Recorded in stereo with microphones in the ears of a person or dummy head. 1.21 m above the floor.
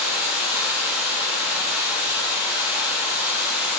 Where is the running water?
5° right (ahead or behind), 1.8 m.